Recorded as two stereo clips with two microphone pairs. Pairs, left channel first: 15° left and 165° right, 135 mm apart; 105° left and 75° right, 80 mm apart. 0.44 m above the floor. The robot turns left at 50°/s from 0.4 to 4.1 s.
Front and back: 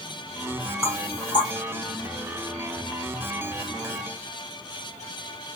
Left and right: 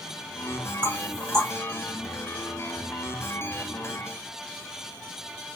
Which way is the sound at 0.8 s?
60° left.